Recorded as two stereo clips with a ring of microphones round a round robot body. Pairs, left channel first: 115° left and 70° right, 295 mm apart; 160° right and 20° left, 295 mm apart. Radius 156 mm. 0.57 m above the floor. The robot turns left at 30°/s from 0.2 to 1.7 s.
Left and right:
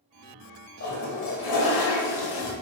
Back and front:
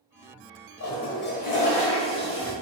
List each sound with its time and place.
0.8 s a toilet flushing: 160° left, 1.1 m; by 2.5 s 130° left, 1.1 m